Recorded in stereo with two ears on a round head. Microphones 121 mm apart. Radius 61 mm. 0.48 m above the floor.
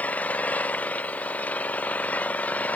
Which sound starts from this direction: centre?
An engine running, at 0.0 s.